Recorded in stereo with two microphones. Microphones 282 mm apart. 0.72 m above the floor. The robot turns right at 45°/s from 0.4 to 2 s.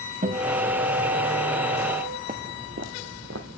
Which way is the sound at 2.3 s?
30° right (ahead or behind).